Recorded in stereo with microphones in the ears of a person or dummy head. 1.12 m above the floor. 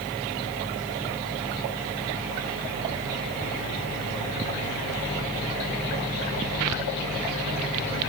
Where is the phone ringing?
No phone ringing in this recording.